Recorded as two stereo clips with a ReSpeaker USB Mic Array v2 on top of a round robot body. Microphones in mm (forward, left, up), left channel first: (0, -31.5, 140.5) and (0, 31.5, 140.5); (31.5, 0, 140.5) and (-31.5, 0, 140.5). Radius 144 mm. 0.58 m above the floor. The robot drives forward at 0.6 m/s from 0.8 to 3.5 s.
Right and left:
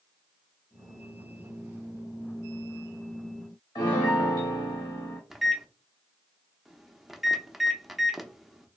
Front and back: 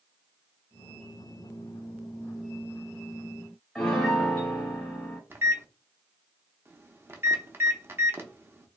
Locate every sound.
3.8 s a piano: 80° right, 0.5 m
5.3 s a microwave: 170° left, 0.8 m